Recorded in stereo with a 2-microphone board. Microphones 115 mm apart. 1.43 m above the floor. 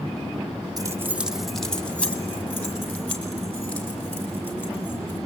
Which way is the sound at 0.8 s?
30° right (ahead or behind).